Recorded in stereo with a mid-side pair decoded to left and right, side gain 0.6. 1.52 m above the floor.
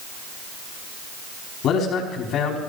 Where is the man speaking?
60° left, 4.5 m.